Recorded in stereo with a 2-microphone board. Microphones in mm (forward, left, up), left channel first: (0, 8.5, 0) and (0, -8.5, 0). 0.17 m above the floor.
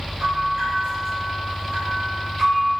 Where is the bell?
50° right (ahead or behind), 1.4 m.